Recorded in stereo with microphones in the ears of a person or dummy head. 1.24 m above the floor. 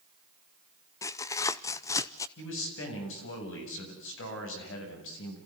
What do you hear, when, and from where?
1.0 s tearing paper: 15° left (ahead or behind), 0.6 m
2.4 s a man speaking: 80° left, 8 m